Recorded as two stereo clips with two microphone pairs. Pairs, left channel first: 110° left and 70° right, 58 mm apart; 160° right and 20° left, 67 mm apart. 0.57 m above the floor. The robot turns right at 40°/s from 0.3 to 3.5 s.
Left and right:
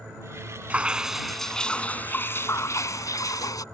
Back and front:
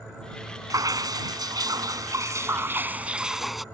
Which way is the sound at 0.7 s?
5° right.